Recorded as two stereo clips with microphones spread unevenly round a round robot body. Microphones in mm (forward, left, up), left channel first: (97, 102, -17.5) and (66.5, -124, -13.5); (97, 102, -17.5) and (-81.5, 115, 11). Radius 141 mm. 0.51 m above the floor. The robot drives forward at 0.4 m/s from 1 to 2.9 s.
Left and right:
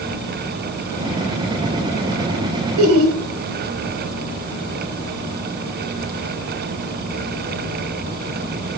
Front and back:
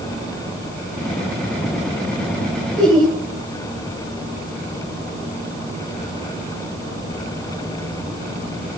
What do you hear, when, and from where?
2.8 s laughter: 105° right, 2.5 m; by 3.2 s 110° right, 2.5 m